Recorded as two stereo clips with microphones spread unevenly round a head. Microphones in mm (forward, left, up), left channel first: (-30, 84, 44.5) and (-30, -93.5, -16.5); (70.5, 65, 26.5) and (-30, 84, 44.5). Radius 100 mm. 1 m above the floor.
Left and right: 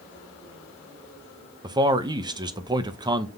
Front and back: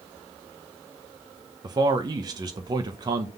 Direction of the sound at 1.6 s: 135° right.